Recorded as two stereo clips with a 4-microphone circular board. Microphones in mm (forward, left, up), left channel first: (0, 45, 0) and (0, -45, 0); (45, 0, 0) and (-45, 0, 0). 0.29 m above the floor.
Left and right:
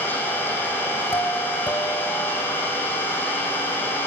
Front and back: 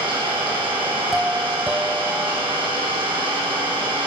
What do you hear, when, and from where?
0.0 s an engine running: 160° left, 8.5 m
1.1 s a doorbell: 105° left, 2 m